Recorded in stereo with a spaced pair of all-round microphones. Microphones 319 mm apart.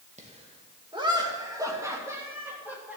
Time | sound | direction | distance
0.2 | laughter | 20° right (ahead or behind) | 2 m